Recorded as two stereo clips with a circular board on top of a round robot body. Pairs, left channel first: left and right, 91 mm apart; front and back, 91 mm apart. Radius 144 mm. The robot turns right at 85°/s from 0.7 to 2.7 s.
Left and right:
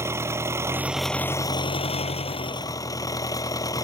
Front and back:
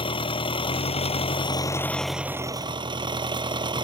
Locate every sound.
0.0 s an engine running: 25° right; by 3.8 s 145° left